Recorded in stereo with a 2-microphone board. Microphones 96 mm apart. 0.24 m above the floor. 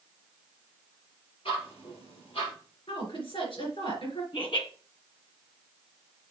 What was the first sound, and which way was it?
Ticking, 75° left (ahead or behind).